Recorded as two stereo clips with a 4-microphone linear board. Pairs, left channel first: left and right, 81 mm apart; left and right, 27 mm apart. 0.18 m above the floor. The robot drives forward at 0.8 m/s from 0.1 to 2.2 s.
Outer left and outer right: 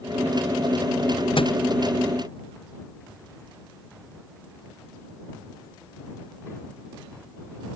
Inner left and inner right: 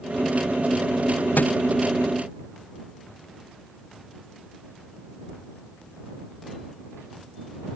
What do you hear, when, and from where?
1.4 s a thud: 85° left